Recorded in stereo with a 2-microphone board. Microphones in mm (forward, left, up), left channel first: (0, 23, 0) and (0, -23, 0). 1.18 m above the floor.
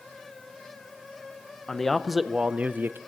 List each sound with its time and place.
1.7 s a man speaking: 15° left (ahead or behind), 0.7 m; by 3.0 s 55° right (ahead or behind), 0.5 m